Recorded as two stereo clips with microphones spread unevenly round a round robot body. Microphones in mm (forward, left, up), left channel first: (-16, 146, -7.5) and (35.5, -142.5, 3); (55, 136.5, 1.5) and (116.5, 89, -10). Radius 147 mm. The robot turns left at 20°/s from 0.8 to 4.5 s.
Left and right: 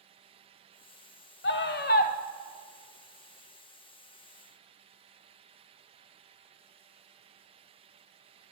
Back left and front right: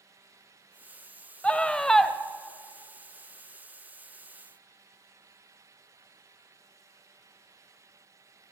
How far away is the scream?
About 1.2 m.